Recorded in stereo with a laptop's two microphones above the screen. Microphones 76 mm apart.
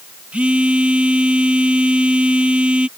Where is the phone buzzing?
20° right (ahead or behind).